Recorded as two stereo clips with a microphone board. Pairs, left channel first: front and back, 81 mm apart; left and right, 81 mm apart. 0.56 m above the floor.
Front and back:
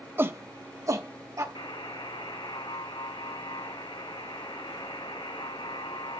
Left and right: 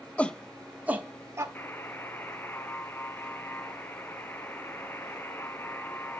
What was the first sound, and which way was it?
A shout, 150° left.